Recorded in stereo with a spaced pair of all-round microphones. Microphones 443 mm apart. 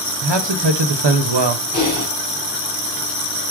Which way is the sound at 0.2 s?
75° right (ahead or behind).